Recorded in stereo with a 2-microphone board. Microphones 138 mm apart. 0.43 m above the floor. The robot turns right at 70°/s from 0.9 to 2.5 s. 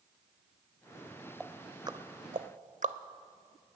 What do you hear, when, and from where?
1.4 s ticking: centre (ahead or behind), 0.6 m; by 3.0 s 65° right (ahead or behind), 0.6 m